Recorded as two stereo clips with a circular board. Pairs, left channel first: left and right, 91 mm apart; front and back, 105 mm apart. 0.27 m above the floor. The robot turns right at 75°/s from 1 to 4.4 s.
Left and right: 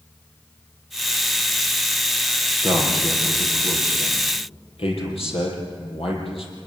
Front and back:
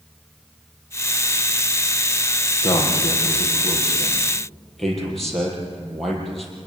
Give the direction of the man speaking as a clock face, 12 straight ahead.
1 o'clock.